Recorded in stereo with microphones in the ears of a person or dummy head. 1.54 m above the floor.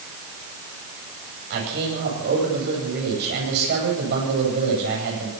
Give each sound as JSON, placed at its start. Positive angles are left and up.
{"t": 1.5, "sound": "a man speaking", "side_deg": -60, "distance_m": 9.5}